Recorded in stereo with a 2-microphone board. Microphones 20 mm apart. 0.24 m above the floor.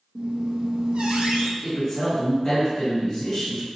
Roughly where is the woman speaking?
Left.